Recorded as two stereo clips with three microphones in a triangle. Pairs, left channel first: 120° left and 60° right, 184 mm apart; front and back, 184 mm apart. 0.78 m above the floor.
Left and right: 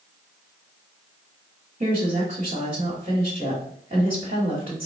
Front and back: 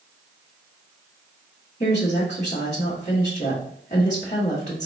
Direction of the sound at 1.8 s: 35° right.